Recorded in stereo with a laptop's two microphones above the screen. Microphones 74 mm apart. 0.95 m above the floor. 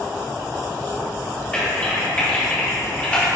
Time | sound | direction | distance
1.5 | typing on a keyboard | 20° left (ahead or behind) | 1.4 m